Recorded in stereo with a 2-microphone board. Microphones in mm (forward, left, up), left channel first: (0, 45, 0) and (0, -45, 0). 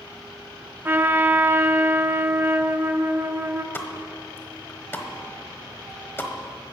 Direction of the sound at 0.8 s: 25° right (ahead or behind).